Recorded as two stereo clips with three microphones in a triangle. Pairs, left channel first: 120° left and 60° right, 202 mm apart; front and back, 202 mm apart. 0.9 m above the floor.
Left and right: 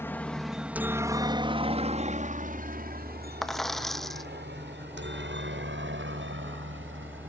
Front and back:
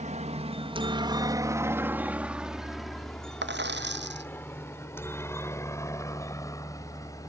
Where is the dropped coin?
150° right.